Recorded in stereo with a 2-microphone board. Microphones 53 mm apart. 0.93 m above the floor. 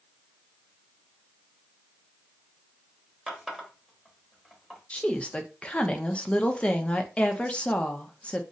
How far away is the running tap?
About 0.9 m.